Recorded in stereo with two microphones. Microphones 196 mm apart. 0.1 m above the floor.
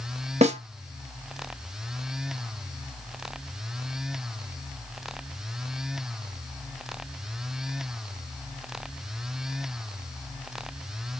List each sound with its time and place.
0.4 s a snare drum: 35° right (ahead or behind), 0.6 m